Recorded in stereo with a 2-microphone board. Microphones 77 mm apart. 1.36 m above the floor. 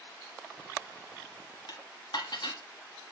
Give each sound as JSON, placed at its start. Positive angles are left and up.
{"t": 1.7, "sound": "dishes clattering", "side_deg": 70, "distance_m": 1.5}